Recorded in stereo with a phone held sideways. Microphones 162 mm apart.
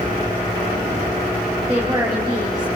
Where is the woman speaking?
25° right (ahead or behind), 2.5 m.